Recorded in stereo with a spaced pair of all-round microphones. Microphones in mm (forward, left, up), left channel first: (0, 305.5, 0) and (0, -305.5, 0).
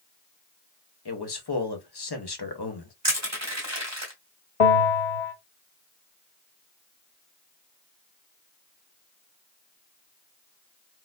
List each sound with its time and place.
1.1 s a man speaking: 40° left (ahead or behind), 1.0 m
3.0 s crushing: 25° right (ahead or behind), 1.8 m
4.6 s a bell: 65° left (ahead or behind), 1.2 m